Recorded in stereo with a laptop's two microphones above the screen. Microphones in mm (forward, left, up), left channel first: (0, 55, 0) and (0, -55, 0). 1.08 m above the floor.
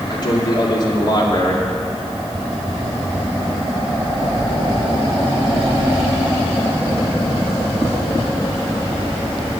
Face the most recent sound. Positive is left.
turn(degrees=40)  # may be behind; listen again after turning